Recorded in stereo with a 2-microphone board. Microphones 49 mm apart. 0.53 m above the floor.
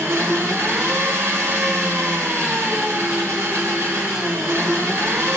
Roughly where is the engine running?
Right.